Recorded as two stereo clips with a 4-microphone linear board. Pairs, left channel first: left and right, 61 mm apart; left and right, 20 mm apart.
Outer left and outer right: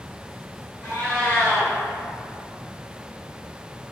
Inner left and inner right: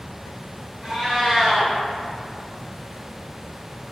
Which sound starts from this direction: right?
A cat meowing, at 0.8 s.